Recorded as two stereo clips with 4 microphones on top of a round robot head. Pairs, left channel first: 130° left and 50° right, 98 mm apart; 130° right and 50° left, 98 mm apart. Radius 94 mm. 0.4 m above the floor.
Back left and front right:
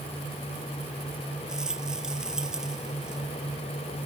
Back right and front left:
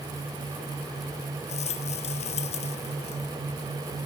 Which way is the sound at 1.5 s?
135° right.